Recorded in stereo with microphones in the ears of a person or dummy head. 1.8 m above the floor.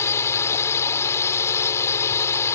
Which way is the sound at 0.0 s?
15° left (ahead or behind).